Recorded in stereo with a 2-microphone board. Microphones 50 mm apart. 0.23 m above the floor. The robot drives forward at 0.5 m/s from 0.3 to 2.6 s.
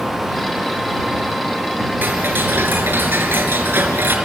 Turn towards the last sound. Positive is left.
turn(degrees=-45)  # may be behind; listen again after turning